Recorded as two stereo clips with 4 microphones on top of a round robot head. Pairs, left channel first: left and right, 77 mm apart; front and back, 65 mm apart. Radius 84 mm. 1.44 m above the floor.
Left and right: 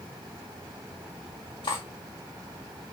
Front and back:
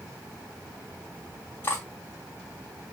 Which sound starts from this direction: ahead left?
Cutlery clinking, at 1.6 s.